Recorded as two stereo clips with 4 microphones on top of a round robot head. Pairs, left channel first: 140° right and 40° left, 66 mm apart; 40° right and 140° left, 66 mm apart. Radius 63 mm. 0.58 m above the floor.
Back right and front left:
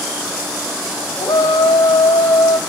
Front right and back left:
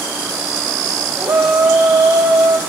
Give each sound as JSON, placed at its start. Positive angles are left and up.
{"t": 1.2, "sound": "a shout", "azimuth_deg": -170, "distance_m": 4.0}